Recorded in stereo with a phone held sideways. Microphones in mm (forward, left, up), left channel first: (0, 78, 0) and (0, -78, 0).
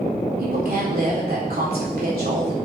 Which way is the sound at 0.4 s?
85° right.